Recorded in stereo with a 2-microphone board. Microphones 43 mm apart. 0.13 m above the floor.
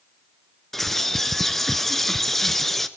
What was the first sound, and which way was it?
A bird, 5° left (ahead or behind).